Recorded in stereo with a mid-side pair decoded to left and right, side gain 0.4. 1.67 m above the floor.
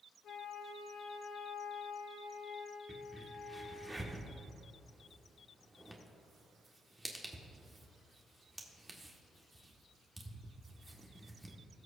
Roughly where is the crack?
Ahead.